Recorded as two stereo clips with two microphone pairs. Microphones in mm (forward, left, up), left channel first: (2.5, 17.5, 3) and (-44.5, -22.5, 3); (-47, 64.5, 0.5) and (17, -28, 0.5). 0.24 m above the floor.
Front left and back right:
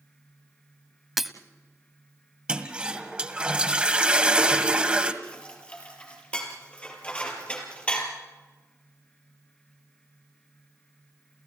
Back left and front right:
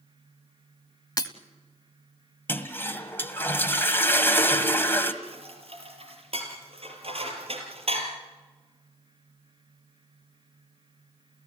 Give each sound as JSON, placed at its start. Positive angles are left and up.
{"t": 1.2, "sound": "breaking glass", "azimuth_deg": 135, "distance_m": 1.0}
{"t": 2.5, "sound": "a toilet flushing", "azimuth_deg": 170, "distance_m": 1.7}
{"t": 5.2, "sound": "dishes clattering", "azimuth_deg": -30, "distance_m": 4.0}